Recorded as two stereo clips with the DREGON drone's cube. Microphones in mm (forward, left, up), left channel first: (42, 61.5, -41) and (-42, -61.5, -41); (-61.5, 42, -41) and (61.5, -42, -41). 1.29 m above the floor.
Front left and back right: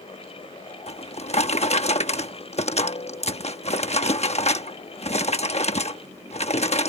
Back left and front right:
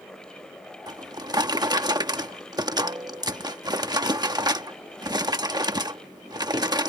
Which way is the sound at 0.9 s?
25° left.